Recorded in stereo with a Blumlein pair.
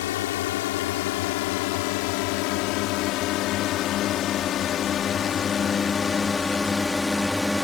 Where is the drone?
55° left; by 7.6 s 5° left.